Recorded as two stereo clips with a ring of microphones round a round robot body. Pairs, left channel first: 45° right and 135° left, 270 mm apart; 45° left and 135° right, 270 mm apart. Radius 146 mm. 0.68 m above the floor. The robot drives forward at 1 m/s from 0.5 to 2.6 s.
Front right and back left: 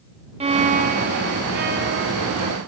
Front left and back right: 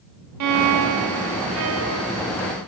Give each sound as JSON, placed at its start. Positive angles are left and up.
{"t": 0.4, "sound": "a violin", "azimuth_deg": -155, "distance_m": 0.7}